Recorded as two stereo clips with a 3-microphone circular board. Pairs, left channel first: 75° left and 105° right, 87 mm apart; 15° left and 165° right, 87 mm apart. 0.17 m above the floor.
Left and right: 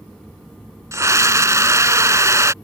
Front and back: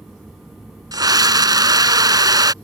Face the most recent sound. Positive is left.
turn(degrees=-145)